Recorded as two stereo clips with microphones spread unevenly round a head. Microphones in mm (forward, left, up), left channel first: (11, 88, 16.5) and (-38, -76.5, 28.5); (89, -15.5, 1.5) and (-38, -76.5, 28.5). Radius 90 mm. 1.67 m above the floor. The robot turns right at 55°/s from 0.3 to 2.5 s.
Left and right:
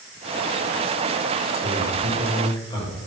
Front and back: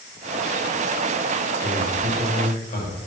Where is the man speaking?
40° right, 8 m; by 3.0 s 5° left, 8 m.